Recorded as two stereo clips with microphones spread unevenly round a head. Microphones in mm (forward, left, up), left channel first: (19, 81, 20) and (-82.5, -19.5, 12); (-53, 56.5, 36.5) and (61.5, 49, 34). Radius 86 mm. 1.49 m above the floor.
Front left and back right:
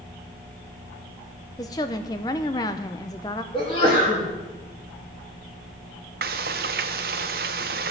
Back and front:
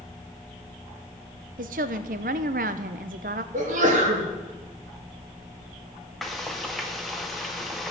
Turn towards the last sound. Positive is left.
turn(degrees=-95)